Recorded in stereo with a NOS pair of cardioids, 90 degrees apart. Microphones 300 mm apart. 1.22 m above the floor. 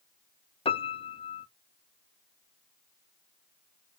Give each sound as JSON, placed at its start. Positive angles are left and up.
{"t": 0.7, "sound": "a piano", "azimuth_deg": 20, "distance_m": 0.6}